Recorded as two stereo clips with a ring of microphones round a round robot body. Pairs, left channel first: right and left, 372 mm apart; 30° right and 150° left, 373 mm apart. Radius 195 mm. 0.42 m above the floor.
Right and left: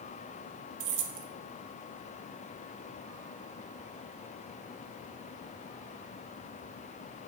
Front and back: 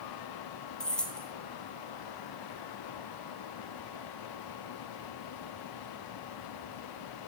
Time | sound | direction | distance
0.8 | keys jangling | 55° left | 1.1 m